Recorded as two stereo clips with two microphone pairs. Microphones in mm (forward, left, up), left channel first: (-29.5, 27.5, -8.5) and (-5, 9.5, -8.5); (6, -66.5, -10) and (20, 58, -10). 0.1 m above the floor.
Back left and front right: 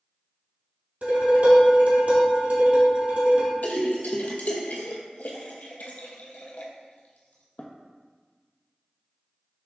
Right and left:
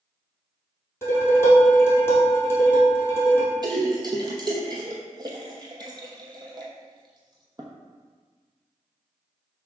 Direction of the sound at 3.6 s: 135° left.